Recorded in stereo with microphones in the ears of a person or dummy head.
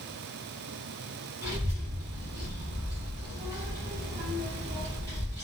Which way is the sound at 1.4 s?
20° right (ahead or behind).